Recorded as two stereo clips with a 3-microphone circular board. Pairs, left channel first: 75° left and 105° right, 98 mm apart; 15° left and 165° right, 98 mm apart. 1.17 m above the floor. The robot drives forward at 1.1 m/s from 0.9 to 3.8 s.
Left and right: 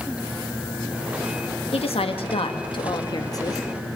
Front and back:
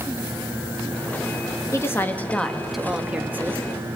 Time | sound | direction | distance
1.7 | a woman speaking | 75° left | 2 m